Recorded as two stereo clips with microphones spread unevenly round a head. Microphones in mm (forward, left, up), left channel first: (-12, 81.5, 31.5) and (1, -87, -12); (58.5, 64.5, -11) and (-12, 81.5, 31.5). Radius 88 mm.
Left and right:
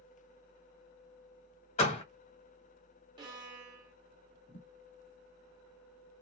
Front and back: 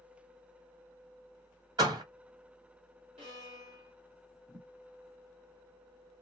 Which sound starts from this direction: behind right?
A violin, at 3.2 s.